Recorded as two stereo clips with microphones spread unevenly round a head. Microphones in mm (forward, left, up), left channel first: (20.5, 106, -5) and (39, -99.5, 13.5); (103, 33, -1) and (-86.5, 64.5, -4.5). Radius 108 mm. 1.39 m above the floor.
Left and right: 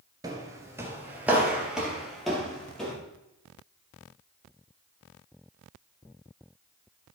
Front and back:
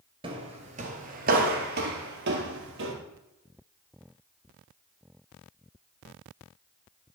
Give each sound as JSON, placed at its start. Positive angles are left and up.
{"t": 0.2, "sound": "footsteps", "azimuth_deg": -140, "distance_m": 1.6}